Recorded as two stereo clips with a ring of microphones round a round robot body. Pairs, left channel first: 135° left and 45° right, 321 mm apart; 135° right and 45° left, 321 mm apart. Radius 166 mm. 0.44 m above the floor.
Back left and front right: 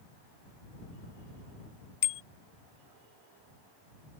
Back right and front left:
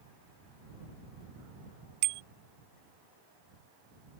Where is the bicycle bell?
80° left.